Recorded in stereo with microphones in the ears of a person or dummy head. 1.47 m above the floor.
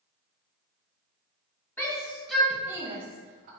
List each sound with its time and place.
1.8 s a shout: 10° left (ahead or behind), 1.0 m; by 3.5 s 50° right (ahead or behind), 0.6 m